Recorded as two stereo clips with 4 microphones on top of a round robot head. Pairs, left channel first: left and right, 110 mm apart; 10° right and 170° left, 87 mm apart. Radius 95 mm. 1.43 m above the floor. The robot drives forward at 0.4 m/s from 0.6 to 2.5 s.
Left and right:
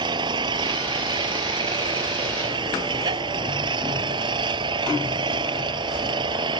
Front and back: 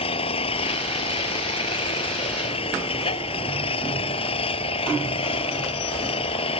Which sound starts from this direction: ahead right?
An engine running, at 0.0 s.